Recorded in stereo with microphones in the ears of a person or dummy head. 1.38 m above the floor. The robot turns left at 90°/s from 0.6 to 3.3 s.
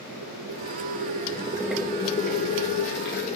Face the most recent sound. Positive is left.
turn(degrees=35)